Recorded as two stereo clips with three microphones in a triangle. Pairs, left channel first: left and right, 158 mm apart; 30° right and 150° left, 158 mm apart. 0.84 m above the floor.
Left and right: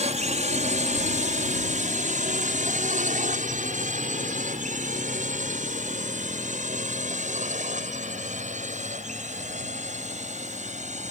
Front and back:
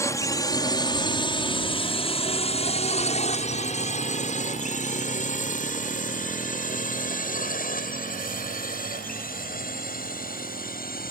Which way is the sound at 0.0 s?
95° right.